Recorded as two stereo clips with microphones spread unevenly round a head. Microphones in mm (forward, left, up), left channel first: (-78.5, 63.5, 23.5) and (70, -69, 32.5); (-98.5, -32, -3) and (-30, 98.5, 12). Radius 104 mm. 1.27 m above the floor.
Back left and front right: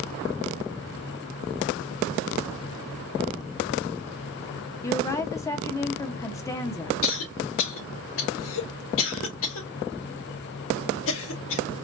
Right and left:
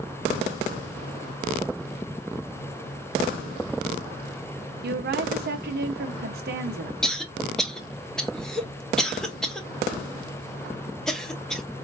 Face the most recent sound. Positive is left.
turn(degrees=155)